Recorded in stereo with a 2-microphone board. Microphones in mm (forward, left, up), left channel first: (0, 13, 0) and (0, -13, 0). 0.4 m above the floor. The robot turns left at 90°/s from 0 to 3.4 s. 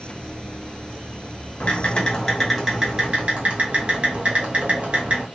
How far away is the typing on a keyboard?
About 1.1 m.